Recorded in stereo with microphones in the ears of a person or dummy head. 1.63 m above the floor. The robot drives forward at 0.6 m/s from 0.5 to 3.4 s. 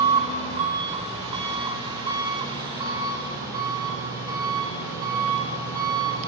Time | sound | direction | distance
0.0 | an engine running | 35° right (ahead or behind) | 3 m